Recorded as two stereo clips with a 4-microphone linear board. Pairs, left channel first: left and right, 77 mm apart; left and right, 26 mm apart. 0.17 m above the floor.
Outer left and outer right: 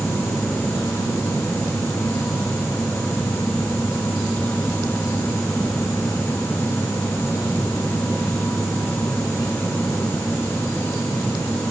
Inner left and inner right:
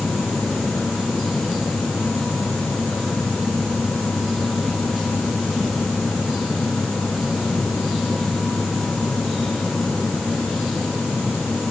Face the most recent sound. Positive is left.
No sound to turn to.